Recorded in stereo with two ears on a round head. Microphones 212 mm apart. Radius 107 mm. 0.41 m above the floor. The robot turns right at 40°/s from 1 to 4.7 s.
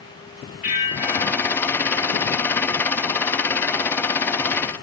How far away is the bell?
About 1.9 m.